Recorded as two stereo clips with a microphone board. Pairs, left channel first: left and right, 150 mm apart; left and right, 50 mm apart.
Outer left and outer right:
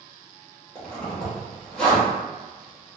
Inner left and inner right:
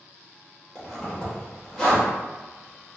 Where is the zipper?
5° left (ahead or behind), 1.5 m.